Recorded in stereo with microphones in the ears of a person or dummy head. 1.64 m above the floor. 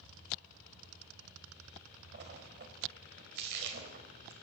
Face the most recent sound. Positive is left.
turn(degrees=-60)  # may be behind; listen again after turning